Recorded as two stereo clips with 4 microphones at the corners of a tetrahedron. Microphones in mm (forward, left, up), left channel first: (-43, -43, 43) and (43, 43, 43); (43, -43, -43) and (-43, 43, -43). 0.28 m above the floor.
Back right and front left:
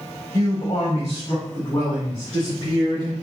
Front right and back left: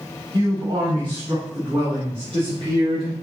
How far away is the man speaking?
About 1.4 m.